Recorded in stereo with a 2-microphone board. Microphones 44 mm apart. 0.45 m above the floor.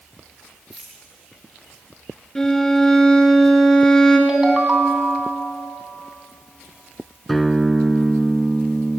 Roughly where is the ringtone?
Centre.